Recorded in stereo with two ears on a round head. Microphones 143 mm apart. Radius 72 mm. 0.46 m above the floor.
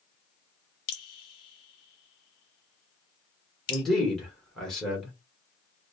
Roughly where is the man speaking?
Centre.